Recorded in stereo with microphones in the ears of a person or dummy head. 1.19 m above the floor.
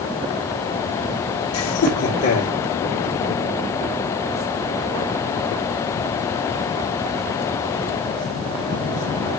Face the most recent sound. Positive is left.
turn(degrees=85)